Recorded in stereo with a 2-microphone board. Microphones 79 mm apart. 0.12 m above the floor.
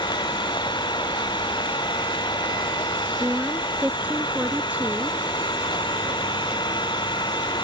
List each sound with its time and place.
0.0 s an engine running: 75° left (ahead or behind)
3.2 s a woman speaking: 20° right (ahead or behind)